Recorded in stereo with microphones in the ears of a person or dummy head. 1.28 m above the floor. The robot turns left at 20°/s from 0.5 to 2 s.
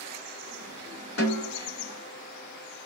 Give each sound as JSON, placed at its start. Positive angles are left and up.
{"t": 1.2, "sound": "a snare drum", "side_deg": 70, "distance_m": 3.5}